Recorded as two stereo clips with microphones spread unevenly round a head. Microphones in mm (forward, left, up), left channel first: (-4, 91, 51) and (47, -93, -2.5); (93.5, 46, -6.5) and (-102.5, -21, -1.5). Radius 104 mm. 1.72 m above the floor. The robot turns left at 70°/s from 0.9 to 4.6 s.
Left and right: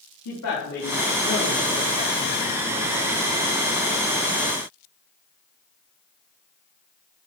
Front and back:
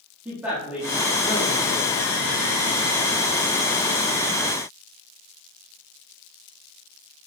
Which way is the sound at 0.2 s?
115° left.